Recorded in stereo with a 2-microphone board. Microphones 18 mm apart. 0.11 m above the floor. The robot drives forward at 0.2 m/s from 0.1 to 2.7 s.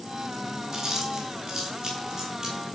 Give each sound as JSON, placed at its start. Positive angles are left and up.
{"t": 0.7, "sound": "chewing", "side_deg": -30, "distance_m": 1.3}